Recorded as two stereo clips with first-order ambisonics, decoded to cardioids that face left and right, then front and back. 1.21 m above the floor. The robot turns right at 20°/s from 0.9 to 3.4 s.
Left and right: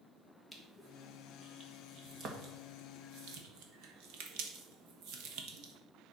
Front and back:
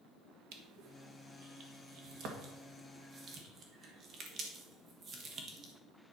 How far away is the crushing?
About 1.7 m.